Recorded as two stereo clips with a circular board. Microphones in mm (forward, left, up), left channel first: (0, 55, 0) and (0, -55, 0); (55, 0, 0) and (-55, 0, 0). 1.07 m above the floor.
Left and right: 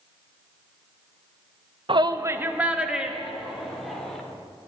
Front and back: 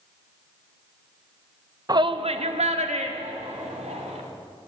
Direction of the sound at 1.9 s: 125° right.